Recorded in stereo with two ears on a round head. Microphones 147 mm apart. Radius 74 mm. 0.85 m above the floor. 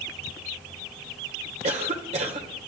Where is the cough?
40° right (ahead or behind), 3 m.